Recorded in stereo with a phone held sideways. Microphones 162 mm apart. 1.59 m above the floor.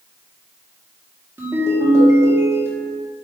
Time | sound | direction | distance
1.4 | a ringtone | 15° right (ahead or behind) | 1.5 m